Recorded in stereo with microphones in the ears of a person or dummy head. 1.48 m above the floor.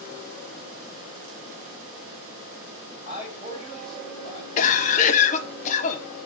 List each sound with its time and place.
3.0 s a man speaking: 25° left (ahead or behind), 3.5 m
4.6 s a cough: 40° left (ahead or behind), 1.0 m